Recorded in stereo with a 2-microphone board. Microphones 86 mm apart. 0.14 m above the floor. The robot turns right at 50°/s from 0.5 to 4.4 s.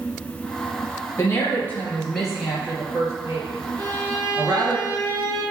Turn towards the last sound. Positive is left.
turn(degrees=-85)